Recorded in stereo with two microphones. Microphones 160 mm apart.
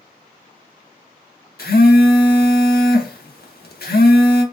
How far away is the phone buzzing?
About 0.8 m.